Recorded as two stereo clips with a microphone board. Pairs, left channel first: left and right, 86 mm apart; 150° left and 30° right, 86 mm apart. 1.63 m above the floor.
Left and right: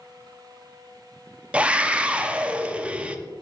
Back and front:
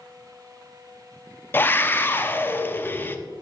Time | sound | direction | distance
1.5 | a scream | 160° right | 0.6 m